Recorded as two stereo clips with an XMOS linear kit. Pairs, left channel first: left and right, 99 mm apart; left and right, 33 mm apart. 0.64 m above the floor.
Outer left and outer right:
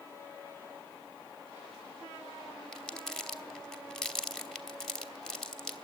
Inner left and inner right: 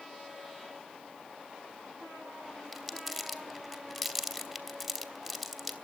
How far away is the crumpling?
About 1.2 m.